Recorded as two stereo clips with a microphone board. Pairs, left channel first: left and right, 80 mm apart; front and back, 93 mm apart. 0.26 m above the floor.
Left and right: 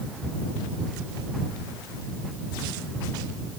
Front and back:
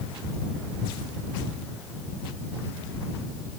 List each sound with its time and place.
Only background noise.